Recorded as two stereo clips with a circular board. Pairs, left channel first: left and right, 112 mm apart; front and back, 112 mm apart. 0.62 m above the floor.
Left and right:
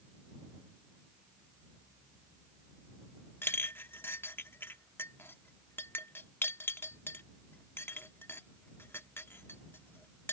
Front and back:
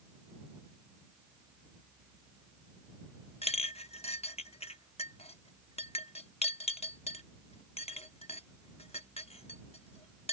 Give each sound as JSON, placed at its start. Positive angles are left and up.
{"t": 3.4, "sound": "a clink", "azimuth_deg": 20}